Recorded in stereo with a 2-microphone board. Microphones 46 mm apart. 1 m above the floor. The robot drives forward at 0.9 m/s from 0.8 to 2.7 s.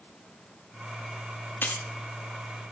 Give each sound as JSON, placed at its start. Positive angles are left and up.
{"t": 1.6, "sound": "keys jangling", "side_deg": 45, "distance_m": 0.8}